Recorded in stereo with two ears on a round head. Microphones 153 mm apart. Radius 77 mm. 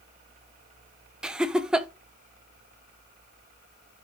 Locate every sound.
1.2 s laughter: 5° right (ahead or behind), 0.7 m